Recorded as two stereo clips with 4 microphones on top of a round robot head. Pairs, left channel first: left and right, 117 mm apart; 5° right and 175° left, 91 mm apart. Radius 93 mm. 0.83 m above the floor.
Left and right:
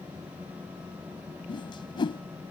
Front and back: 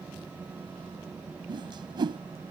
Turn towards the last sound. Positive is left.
turn(degrees=140)